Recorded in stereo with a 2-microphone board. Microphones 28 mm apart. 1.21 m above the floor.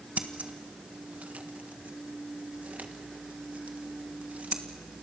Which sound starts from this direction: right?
Scissors, at 0.2 s.